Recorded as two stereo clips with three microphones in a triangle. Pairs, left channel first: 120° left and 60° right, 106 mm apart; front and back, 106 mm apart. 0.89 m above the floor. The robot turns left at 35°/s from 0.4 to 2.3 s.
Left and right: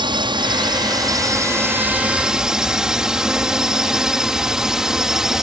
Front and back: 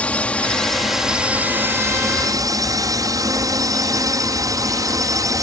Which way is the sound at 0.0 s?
75° right.